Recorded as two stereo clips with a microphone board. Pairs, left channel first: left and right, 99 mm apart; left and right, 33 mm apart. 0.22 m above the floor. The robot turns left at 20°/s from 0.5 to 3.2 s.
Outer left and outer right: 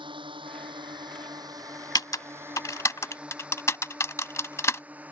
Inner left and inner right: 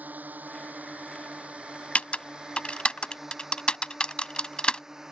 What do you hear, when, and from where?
0.0 s a drone: 55° right (ahead or behind); by 5.1 s 15° right (ahead or behind)
1.9 s typing on a keyboard: 40° left (ahead or behind); by 4.8 s 30° left (ahead or behind)